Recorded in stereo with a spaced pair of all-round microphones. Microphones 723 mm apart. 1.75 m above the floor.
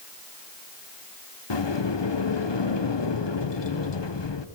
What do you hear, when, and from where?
1.5 s a sliding door: 35° left (ahead or behind), 0.9 m